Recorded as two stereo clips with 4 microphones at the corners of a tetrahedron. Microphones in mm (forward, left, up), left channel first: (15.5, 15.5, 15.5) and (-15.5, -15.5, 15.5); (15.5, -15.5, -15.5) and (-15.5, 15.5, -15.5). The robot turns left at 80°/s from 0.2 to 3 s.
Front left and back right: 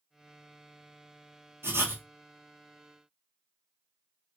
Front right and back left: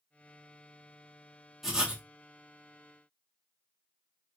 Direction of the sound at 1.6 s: 140° right.